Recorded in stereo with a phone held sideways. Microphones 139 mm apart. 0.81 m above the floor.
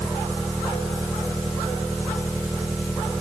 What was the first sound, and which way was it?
An engine running, centre (ahead or behind).